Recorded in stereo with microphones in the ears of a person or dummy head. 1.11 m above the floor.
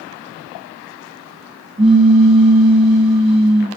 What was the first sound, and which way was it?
A pop, 25° right (ahead or behind).